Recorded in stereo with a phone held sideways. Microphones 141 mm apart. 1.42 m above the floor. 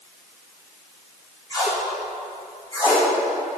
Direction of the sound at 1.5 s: 30° left (ahead or behind).